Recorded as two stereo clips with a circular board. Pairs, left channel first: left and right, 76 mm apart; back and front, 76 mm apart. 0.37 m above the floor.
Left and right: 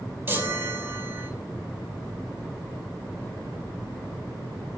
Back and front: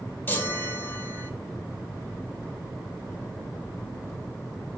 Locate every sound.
0.3 s a chime: 130° right, 1.5 m